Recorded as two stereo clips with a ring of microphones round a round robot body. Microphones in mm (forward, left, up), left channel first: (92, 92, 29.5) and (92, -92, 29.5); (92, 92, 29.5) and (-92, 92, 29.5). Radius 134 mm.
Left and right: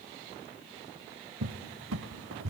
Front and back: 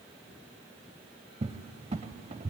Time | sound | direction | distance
1.4 | a cupboard door | 115° right | 0.6 m